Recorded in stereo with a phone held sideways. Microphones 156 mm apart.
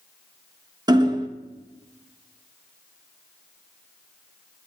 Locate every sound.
0.9 s hammering: 25° right (ahead or behind), 0.7 m